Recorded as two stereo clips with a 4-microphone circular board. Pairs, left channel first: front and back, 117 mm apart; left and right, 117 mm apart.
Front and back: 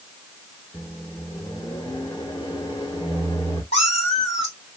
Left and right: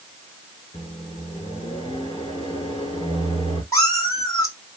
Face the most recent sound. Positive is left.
turn(degrees=30)